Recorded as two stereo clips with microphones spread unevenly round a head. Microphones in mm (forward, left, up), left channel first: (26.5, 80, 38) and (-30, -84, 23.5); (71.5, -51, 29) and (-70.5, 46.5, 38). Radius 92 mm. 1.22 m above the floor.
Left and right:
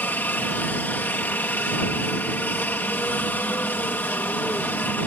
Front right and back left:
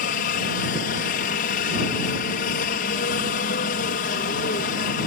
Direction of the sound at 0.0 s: 10° right.